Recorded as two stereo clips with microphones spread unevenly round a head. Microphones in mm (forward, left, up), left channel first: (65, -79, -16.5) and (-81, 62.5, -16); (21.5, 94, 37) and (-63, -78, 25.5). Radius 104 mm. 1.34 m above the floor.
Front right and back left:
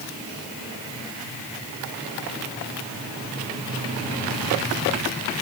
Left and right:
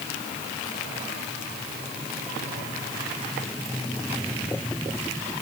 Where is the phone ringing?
No phone ringing in this recording.